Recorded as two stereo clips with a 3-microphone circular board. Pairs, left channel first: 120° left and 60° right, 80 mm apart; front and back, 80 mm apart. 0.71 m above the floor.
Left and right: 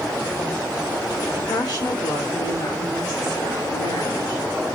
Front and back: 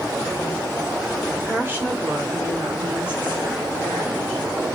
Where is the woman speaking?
125° left, 1.6 m; by 4.5 s 105° left, 3.5 m.